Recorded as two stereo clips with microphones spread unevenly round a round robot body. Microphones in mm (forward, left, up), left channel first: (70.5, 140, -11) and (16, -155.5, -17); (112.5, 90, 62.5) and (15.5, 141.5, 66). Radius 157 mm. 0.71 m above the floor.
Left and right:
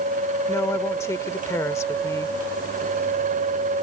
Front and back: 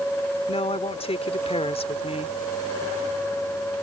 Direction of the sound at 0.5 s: Straight ahead.